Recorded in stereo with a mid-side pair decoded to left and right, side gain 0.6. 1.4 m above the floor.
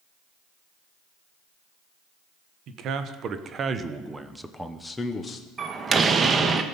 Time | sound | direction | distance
2.7 | a man speaking | 60° right | 1.4 m
5.6 | a door slam | 30° right | 1.1 m